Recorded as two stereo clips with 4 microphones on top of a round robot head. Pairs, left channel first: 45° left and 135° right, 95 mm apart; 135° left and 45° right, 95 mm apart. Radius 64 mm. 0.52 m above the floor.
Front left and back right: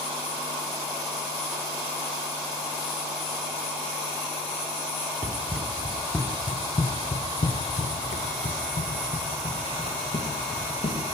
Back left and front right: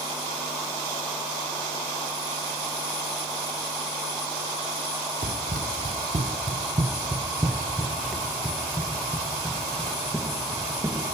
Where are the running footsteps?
65° right, 1.1 m; by 11.0 s 70° left, 2.5 m.